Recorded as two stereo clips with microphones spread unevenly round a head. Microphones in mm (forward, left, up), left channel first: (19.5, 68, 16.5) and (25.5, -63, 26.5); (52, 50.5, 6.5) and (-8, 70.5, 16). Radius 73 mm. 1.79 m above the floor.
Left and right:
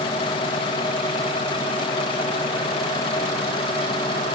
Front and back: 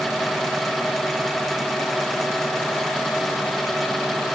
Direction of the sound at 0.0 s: 90° left.